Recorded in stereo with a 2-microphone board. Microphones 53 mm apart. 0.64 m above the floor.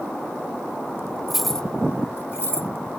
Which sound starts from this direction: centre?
Keys jangling, at 1.3 s.